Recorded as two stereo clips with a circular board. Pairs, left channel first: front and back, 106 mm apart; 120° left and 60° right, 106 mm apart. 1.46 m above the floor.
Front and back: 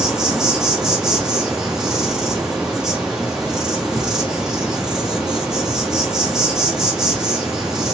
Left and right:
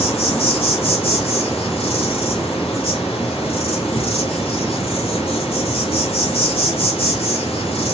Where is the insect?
95° left, 3 m.